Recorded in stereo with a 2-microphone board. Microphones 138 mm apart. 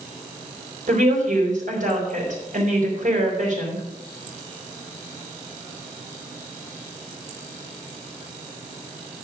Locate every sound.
0.9 s a woman speaking: 70° right (ahead or behind), 4.5 m